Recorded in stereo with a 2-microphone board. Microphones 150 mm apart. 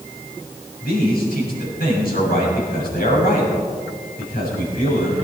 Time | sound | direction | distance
0.8 | a man speaking | 80° left | 6.5 m